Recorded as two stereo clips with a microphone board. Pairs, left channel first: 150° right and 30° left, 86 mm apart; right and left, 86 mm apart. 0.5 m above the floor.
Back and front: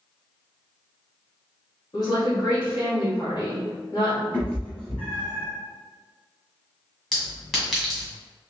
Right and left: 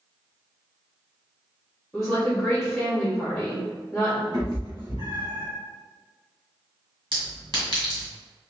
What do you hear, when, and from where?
1.9 s a woman speaking: straight behind, 1.7 m
4.3 s a cat meowing: 135° left, 1.5 m
7.1 s a clink: 120° left, 1.8 m